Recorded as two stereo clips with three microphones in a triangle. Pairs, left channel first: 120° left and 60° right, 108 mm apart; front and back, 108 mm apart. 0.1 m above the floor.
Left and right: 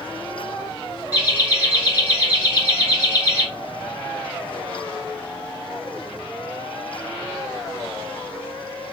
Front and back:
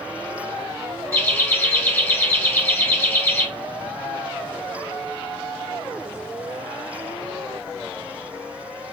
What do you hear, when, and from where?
1.1 s laughter: 15° right, 1.7 m